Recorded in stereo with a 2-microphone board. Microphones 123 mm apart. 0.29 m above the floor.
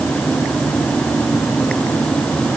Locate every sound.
Only background noise.